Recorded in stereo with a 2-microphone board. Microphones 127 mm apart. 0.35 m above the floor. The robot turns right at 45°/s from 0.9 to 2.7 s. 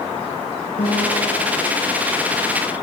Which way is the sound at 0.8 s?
90° left.